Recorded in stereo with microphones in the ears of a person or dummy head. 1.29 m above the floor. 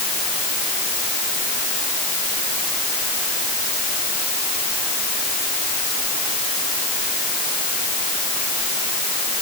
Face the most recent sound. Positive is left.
No sound to turn to.